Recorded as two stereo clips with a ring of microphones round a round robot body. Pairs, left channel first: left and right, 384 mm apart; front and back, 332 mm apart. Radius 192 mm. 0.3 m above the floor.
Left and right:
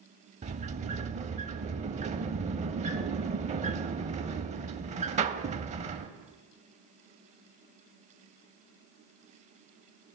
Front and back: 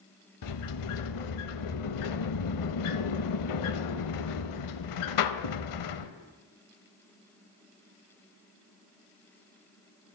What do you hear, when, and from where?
0.4 s a sliding door: 20° right, 0.5 m